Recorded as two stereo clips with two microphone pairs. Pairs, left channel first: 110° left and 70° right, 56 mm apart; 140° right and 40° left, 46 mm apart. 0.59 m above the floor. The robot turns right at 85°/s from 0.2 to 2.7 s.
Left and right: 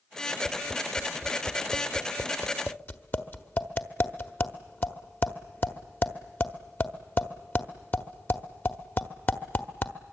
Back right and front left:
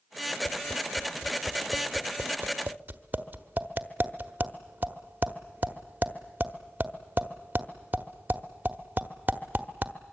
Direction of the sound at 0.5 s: 120° right.